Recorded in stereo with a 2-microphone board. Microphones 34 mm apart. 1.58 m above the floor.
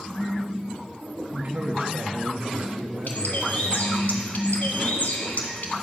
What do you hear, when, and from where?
1.3 s a man speaking: 60° right (ahead or behind), 0.9 m
3.1 s a bird: 60° left (ahead or behind), 1.2 m